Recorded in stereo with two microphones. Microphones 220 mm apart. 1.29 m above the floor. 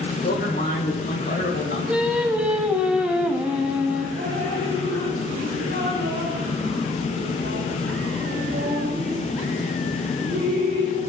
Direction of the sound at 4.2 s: 50° right (ahead or behind).